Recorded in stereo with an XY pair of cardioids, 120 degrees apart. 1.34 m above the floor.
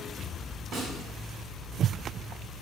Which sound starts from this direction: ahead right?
A snare drum, at 0.7 s.